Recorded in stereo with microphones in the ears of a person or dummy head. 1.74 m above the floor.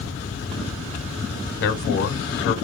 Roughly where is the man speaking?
Left.